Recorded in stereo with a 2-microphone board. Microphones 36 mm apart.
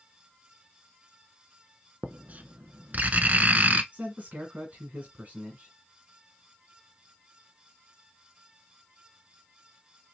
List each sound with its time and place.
2.0 s writing: 50° right (ahead or behind), 0.5 m
3.9 s a man speaking: 45° right (ahead or behind), 2.0 m